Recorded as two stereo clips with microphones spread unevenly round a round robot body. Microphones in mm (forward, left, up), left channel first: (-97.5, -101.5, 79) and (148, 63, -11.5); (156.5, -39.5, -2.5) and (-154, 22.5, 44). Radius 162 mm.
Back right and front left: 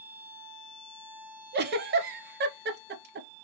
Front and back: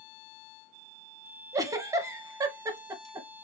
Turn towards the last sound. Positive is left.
turn(degrees=90)